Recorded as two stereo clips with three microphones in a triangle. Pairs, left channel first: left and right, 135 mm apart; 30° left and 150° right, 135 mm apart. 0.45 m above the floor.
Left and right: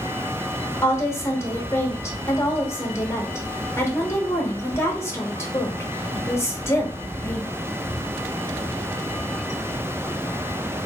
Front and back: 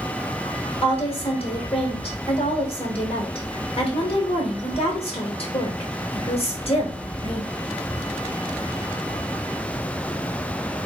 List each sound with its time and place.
0.8 s a woman speaking: 30° left, 1.0 m